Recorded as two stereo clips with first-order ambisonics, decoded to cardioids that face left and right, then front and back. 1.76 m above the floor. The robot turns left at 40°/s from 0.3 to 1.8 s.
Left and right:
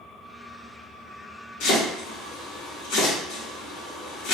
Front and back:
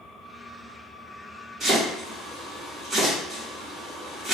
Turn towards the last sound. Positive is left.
turn(degrees=100)